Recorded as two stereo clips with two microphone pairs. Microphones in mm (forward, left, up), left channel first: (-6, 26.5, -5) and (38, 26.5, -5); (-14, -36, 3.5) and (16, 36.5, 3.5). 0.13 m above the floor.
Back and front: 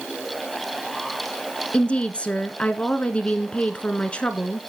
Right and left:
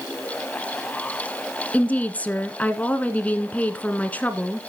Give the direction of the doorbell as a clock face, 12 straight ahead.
No doorbell in this recording.